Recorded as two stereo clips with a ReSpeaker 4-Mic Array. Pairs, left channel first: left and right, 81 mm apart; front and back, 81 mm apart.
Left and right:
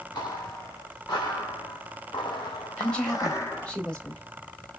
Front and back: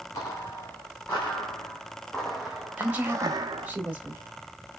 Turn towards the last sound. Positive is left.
turn(degrees=150)